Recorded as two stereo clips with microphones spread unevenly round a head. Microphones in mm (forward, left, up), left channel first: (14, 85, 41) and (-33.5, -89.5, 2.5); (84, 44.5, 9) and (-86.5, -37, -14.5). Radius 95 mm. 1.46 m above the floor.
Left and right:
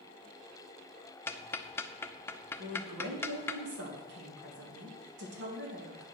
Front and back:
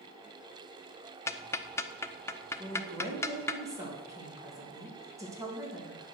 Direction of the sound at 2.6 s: 80° right.